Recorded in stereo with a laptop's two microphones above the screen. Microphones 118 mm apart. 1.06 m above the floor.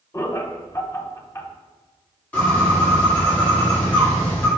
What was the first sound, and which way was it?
Laughter, 25° left (ahead or behind).